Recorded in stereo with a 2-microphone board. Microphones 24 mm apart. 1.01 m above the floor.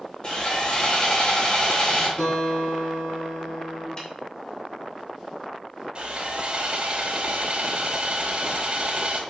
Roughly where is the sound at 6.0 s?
Right.